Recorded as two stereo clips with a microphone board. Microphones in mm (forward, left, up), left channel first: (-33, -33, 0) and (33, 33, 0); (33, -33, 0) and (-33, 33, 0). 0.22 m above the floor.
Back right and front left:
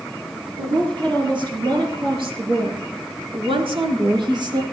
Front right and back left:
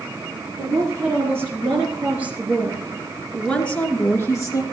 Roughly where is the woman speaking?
Left.